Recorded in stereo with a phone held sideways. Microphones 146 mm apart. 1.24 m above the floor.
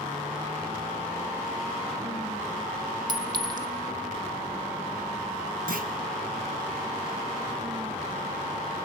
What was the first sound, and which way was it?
A clink, 30° right (ahead or behind).